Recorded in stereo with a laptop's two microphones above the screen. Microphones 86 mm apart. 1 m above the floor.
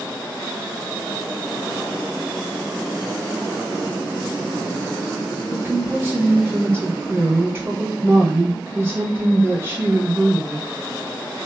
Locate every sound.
5.5 s a woman speaking: 25° right (ahead or behind), 1.3 m